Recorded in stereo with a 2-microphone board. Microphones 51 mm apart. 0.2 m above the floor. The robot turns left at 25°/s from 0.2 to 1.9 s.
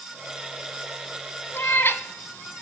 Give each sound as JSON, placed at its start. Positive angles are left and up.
{"t": 1.5, "sound": "a cat meowing", "side_deg": 45, "distance_m": 0.5}